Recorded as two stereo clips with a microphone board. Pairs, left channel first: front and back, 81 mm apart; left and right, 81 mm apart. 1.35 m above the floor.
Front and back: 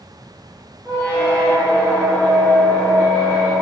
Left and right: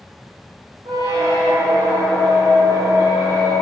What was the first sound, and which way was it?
A squeak, 70° right.